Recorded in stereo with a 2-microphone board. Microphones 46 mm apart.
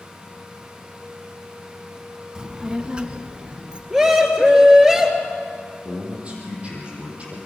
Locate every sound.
2.4 s a child speaking: 15° right (ahead or behind), 0.9 m; by 3.8 s 20° right (ahead or behind), 2 m
3.9 s a scream: 15° right (ahead or behind), 3 m
5.8 s a man speaking: 30° right (ahead or behind), 6.5 m